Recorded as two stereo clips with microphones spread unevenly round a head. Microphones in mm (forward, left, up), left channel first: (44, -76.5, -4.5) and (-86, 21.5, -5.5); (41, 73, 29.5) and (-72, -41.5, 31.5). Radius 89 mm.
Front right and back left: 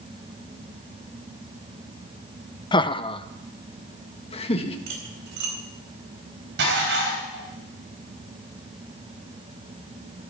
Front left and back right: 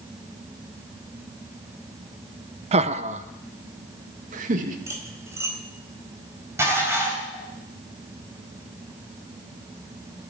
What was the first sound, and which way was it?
Laughter, 95° right.